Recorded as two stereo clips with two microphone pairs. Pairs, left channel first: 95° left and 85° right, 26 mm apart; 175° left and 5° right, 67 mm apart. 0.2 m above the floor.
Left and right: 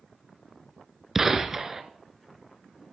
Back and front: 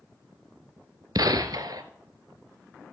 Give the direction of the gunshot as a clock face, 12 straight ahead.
1 o'clock.